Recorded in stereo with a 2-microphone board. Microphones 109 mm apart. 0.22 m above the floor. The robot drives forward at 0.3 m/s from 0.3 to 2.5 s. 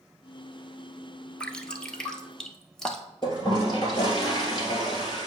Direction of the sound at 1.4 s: 10° left (ahead or behind).